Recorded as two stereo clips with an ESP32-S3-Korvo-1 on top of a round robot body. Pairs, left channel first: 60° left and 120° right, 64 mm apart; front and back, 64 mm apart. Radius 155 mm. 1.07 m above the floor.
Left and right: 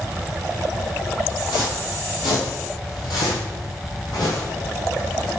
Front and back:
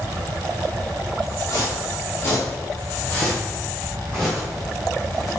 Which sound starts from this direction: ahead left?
Footsteps, at 1.5 s.